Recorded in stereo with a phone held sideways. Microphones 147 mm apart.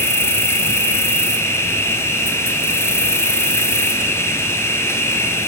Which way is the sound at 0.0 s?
15° left (ahead or behind).